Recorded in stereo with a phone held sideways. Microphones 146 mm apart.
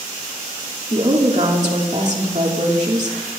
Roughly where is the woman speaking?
Right.